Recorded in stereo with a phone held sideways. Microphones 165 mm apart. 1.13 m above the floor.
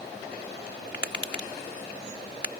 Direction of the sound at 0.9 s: 80° left.